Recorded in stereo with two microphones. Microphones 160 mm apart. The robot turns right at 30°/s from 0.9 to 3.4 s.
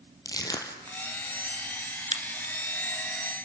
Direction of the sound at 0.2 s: 25° left (ahead or behind).